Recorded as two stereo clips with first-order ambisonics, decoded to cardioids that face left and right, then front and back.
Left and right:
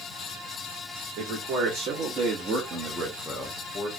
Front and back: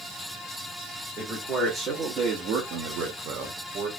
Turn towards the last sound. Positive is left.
turn(degrees=150)